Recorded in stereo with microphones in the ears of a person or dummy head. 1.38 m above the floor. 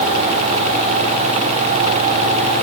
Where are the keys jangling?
I don't hear keys jangling.